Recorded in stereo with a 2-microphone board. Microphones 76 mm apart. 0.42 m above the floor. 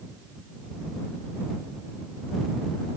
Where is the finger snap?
I don't hear a finger snap.